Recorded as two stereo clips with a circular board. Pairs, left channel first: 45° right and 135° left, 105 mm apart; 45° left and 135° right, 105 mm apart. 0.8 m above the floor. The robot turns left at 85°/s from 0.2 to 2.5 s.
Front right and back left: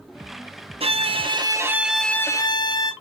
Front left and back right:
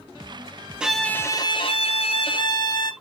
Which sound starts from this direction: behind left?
A violin, at 0.8 s.